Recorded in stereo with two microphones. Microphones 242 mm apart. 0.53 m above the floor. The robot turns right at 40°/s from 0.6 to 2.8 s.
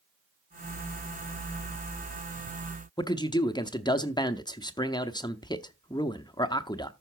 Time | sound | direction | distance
3.0 | a man speaking | 15° left (ahead or behind) | 0.6 m